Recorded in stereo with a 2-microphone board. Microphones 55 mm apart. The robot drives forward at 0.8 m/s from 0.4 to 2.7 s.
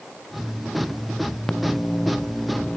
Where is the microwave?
15° left (ahead or behind).